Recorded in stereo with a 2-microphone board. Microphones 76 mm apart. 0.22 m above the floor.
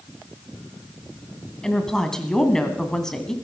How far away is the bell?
I don't hear a bell.